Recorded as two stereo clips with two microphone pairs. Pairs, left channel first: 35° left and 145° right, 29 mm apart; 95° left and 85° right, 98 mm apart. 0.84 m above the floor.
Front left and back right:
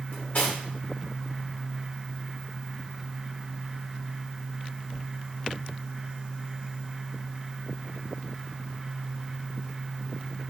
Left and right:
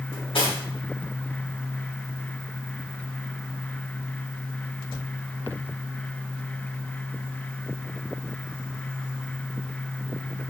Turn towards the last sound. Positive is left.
turn(degrees=70)